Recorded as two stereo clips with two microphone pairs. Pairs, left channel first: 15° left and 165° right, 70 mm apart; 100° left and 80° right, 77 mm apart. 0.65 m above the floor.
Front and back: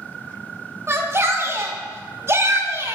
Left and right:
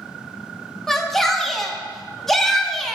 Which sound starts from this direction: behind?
A shout, at 0.9 s.